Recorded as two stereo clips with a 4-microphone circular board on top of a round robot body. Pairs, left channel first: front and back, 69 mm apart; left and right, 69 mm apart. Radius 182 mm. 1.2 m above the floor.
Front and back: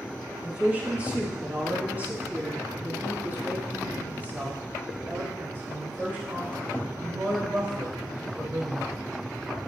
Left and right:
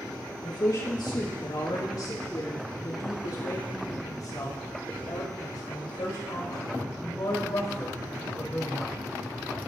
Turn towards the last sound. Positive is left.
turn(degrees=120)